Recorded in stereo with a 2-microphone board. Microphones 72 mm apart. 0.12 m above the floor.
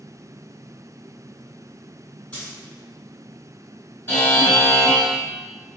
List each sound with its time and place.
2.3 s a dropped coin: 20° left (ahead or behind), 1.6 m
4.1 s a buzzer: 30° left (ahead or behind), 1.6 m